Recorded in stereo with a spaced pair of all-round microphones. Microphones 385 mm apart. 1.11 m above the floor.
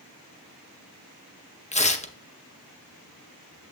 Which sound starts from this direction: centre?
Tearing paper, at 1.7 s.